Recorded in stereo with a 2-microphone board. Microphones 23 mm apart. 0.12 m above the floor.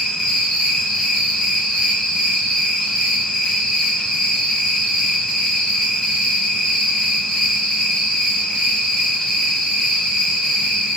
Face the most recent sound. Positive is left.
turn(degrees=25)  # may be behind; listen again after turning